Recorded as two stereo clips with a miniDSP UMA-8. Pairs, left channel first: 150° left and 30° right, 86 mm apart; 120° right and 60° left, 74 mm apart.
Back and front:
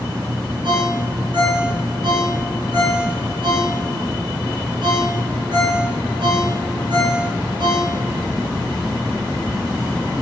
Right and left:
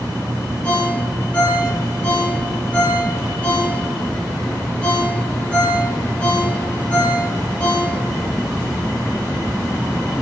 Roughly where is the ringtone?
Ahead right.